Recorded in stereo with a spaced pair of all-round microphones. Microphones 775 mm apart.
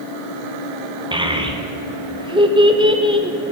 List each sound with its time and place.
1.1 s a child speaking: 5° right (ahead or behind), 1.0 m